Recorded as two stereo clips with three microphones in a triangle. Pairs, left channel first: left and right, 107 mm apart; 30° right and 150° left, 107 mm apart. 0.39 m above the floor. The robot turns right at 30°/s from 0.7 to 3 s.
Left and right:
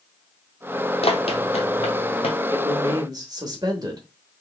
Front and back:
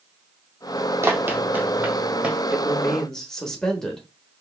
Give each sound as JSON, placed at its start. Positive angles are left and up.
{"t": 1.0, "sound": "running footsteps", "azimuth_deg": 90, "distance_m": 0.7}
{"t": 2.5, "sound": "a man speaking", "azimuth_deg": -125, "distance_m": 1.1}